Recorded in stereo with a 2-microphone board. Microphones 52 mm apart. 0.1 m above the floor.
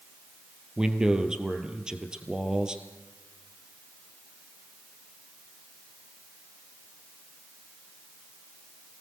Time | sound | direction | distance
0.8 | a man speaking | 15° right (ahead or behind) | 2 m